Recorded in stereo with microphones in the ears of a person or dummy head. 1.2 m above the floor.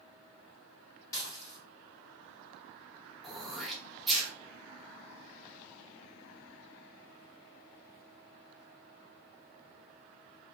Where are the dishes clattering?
20° left (ahead or behind), 1.3 m.